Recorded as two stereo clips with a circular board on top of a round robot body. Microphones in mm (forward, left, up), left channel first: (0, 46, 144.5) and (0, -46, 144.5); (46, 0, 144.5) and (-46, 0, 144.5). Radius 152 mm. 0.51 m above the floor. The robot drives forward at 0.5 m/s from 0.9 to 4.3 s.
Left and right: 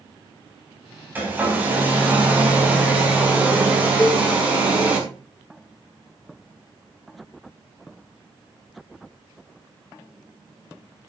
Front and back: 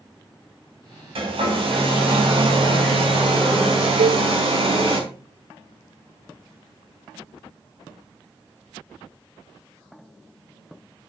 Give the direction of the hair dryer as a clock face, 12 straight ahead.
5 o'clock.